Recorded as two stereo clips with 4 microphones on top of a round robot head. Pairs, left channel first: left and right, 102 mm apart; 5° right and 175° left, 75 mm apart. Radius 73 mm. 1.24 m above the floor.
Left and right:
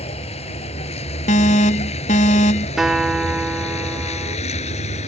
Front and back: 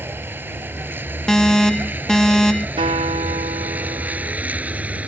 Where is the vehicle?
110° left; by 5.1 s 100° left.